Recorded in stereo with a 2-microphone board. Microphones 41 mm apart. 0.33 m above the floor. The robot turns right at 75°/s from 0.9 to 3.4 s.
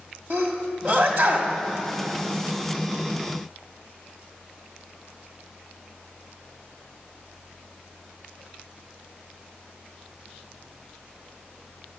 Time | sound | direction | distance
0.3 | a sneeze | 45° right (ahead or behind) | 1.8 m